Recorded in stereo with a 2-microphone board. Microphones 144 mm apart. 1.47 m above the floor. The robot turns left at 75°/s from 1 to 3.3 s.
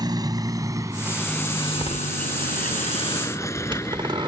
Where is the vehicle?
30° right (ahead or behind); by 4.3 s 20° left (ahead or behind).